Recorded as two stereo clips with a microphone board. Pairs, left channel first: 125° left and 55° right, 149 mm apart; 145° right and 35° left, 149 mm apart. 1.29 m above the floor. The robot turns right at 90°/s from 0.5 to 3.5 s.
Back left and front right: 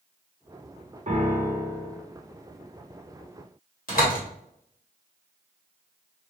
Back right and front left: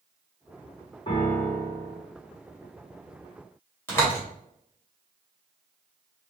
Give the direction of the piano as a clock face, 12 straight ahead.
3 o'clock.